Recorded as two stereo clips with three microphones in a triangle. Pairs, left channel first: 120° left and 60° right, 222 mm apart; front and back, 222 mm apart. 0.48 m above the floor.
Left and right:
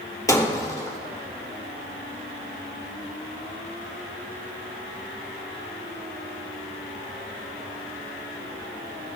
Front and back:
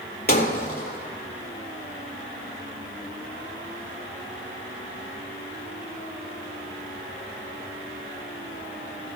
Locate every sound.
0.3 s breaking glass: 45° left, 3.5 m